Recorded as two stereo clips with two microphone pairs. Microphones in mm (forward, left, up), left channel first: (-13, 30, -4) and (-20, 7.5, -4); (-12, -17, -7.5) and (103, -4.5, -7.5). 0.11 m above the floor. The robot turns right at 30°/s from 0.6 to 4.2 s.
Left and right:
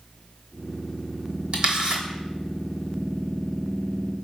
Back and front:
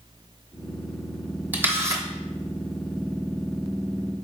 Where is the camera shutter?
65° right, 0.9 m; by 2.0 s 50° right, 0.9 m.